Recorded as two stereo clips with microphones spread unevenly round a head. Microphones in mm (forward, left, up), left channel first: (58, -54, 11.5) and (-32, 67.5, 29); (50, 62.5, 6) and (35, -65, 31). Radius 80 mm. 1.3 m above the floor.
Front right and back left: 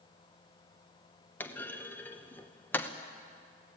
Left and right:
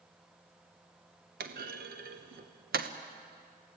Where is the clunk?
130° right, 0.9 m.